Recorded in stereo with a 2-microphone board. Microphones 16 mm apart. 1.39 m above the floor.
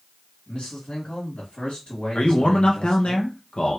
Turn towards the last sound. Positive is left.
turn(degrees=80)